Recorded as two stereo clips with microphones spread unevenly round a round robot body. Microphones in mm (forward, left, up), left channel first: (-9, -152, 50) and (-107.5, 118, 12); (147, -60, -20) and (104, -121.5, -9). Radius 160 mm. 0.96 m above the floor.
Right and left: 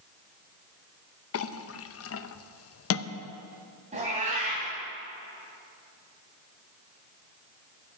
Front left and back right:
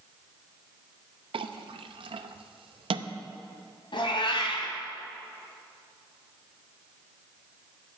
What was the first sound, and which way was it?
A clink, 120° right.